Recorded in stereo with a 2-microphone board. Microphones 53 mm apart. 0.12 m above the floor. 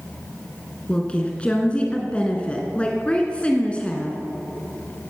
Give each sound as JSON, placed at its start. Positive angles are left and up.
{"t": 0.9, "sound": "a woman speaking", "side_deg": 20, "distance_m": 1.4}